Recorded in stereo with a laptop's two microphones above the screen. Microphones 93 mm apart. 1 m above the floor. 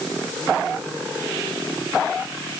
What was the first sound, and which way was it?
Only background noise.